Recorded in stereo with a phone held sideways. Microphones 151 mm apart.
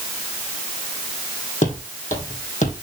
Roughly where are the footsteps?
Left.